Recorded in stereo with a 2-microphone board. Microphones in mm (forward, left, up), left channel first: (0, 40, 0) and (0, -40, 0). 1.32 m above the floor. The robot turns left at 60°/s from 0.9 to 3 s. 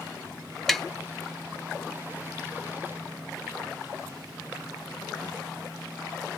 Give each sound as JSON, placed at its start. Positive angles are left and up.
{"t": 0.7, "sound": "tapping", "side_deg": 5, "distance_m": 0.5}